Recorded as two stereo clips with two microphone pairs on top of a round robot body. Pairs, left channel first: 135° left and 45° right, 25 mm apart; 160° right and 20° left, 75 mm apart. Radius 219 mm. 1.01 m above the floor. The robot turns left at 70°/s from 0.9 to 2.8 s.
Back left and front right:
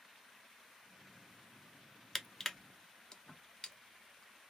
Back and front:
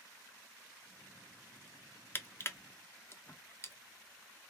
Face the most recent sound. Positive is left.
turn(degrees=-175)